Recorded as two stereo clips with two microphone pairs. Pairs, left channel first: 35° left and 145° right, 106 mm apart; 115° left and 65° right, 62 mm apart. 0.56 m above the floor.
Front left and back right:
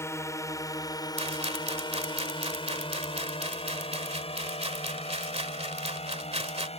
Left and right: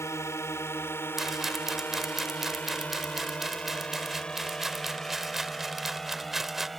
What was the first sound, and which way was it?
A drone, 90° left.